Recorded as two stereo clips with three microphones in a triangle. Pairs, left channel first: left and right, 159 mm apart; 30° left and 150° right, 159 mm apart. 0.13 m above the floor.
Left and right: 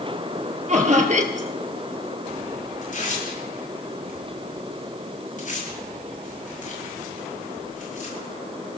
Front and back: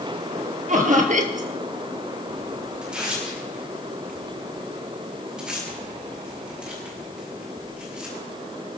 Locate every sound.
0.7 s laughter: 125° right, 2.5 m
2.8 s tearing paper: 125° left, 8.5 m